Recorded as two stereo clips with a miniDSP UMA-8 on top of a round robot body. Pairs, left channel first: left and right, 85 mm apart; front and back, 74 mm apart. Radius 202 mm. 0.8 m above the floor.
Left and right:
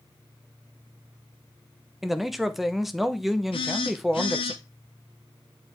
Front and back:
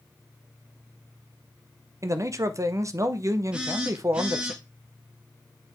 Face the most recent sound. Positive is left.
turn(degrees=105)